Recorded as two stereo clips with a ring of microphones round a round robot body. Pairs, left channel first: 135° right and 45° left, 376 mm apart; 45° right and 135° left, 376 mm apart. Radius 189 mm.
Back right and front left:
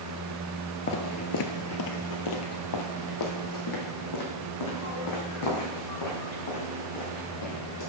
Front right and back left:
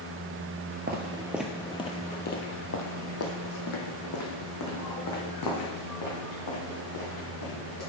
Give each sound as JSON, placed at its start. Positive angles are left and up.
{"t": 0.9, "sound": "footsteps", "azimuth_deg": -175, "distance_m": 0.6}